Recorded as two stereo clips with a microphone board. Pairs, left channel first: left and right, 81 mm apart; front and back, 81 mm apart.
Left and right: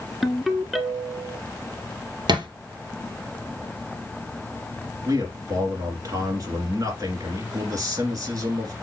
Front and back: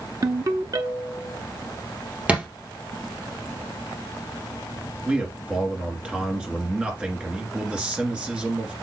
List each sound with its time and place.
0.2 s a ringtone: straight behind, 0.8 m
2.3 s a thud: 110° right, 1.9 m
5.0 s a man speaking: 110° right, 2.0 m